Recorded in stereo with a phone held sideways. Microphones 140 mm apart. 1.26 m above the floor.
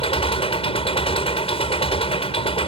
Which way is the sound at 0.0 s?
45° left (ahead or behind).